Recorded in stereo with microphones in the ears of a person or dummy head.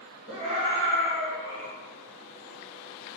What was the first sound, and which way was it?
A scream, 35° right (ahead or behind).